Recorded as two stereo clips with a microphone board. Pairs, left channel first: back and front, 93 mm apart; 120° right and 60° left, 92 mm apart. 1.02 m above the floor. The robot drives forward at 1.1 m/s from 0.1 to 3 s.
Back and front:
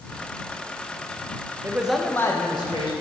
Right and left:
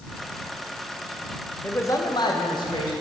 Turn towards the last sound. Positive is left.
turn(degrees=-155)